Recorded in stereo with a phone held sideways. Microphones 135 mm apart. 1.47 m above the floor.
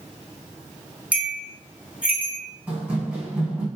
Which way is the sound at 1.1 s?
10° right (ahead or behind).